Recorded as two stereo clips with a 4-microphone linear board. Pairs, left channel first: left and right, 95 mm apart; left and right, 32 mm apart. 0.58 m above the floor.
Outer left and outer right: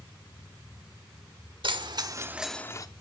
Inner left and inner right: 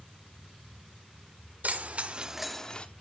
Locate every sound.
1.6 s keys jangling: 60° right (ahead or behind), 1.3 m; by 2.9 s 40° left (ahead or behind), 0.8 m